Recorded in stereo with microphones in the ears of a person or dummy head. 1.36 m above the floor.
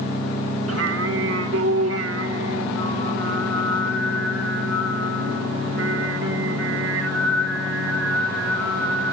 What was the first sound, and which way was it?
Singing, 75° right (ahead or behind).